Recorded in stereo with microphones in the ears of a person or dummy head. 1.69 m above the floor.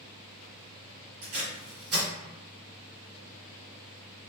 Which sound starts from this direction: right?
Tape being pulled, at 1.2 s.